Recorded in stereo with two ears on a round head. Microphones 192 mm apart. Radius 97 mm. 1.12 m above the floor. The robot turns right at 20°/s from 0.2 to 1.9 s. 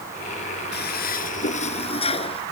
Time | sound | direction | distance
0.7 | a toilet flushing | 50° left (ahead or behind) | ?